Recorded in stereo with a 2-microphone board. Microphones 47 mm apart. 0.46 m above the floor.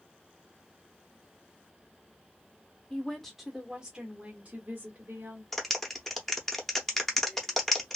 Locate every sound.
2.9 s a woman speaking: 15° left (ahead or behind), 1.0 m; by 5.4 s 45° right (ahead or behind), 1.5 m
5.5 s a clap: 5° left (ahead or behind), 0.7 m